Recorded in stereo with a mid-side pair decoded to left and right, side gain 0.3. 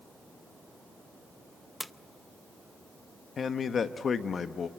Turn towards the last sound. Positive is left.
turn(degrees=65)